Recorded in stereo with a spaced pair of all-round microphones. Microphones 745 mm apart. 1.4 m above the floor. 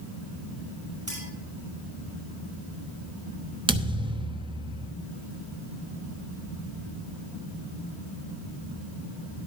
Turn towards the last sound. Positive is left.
turn(degrees=-5)  # may be behind; listen again after turning